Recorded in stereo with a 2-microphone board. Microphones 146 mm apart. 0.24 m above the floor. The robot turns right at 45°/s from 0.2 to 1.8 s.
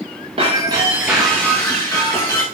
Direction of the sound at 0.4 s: 40° right.